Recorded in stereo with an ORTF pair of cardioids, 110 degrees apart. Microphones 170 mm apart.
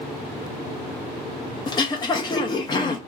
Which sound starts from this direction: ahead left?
Throat clearing, at 1.7 s.